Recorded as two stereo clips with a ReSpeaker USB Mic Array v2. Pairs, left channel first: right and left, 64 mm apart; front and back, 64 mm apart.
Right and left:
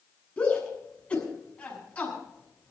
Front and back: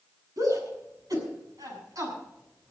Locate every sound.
0.4 s a shout: 160° right, 7.5 m